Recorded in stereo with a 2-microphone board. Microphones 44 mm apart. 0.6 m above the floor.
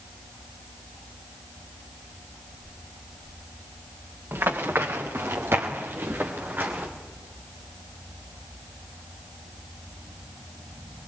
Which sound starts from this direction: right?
Running footsteps, at 4.3 s.